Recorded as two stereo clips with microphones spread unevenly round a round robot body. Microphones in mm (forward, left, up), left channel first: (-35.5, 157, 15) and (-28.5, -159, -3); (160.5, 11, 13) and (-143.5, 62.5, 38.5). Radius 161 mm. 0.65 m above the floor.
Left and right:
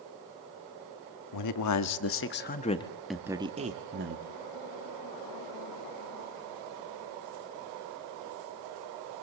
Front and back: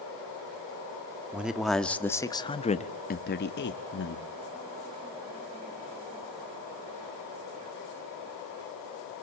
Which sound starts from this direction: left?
A man speaking, at 1.3 s.